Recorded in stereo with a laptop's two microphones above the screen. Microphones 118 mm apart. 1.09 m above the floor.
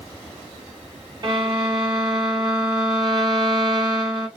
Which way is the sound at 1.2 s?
40° right (ahead or behind).